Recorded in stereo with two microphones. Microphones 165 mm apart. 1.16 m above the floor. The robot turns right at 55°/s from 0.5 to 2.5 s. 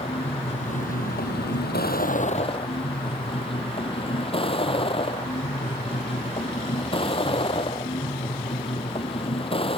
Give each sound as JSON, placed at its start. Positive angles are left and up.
{"t": 0.0, "sound": "a vehicle", "azimuth_deg": 35}